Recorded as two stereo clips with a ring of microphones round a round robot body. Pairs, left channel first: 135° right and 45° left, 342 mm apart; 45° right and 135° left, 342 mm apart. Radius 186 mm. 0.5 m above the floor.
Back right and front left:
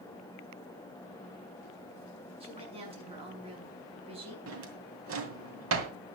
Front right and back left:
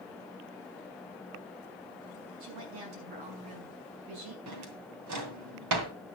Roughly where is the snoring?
I don't hear snoring.